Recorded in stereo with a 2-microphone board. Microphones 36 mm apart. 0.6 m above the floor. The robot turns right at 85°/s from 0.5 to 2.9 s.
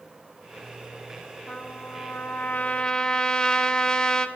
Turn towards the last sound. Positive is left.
turn(degrees=160)